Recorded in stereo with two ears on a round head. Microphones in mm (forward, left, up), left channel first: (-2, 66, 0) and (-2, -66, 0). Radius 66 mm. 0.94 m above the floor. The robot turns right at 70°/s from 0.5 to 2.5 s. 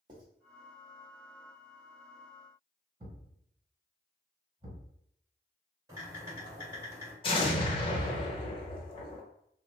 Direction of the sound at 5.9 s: 20° right (ahead or behind).